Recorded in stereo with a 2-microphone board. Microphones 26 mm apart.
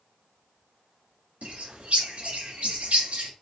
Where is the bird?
75° right (ahead or behind), 1.8 m.